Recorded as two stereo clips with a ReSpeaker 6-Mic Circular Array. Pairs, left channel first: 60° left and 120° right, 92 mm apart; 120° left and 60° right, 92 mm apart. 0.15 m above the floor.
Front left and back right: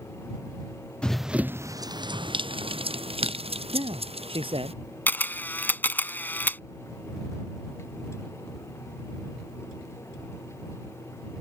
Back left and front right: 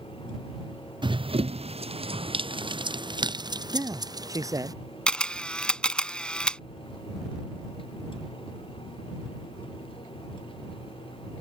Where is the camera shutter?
60° left.